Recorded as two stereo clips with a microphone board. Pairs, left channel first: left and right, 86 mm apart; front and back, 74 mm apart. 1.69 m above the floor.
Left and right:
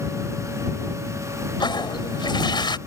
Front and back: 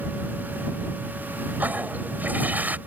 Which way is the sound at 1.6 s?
115° left.